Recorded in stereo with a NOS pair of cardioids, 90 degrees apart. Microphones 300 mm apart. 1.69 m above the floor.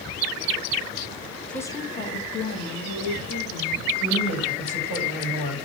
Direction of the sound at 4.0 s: 40° left.